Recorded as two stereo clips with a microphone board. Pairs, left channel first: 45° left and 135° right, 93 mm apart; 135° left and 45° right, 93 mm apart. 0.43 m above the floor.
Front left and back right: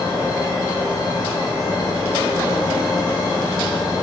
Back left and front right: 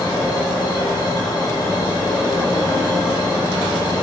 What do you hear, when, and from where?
0.0 s an insect: 95° left, 2.5 m